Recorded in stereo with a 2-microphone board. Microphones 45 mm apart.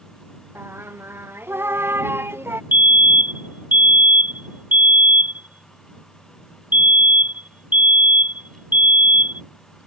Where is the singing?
55° right (ahead or behind).